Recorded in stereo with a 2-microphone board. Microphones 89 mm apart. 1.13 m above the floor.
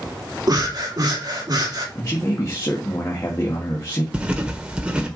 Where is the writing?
15° right (ahead or behind), 1.5 m.